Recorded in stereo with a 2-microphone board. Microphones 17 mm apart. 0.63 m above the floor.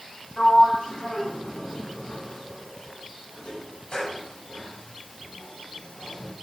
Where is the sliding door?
70° left (ahead or behind), 4.5 m.